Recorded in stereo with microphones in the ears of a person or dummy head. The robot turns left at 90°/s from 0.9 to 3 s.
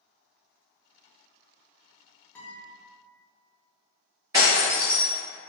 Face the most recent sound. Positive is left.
turn(degrees=-10)  # may be behind; listen again after turning